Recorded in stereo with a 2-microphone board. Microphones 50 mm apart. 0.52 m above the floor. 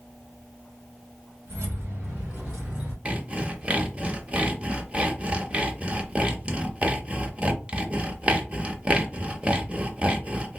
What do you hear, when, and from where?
1.5 s keys jangling: 50° right (ahead or behind), 2.0 m; by 3.0 s 25° right (ahead or behind), 2.5 m
3.0 s sawing: 25° right (ahead or behind), 0.6 m